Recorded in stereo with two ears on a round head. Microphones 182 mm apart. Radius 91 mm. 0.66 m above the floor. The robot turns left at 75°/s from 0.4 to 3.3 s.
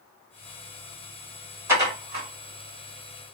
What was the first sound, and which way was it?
Dishes clattering, 15° right (ahead or behind).